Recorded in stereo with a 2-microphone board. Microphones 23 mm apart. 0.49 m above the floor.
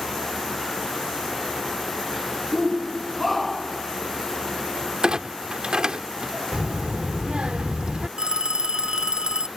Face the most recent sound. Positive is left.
turn(degrees=-30)  # may be behind; listen again after turning